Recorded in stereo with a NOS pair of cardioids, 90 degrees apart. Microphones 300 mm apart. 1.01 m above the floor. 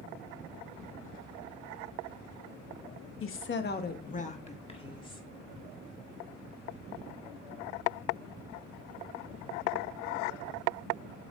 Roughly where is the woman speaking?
Ahead left.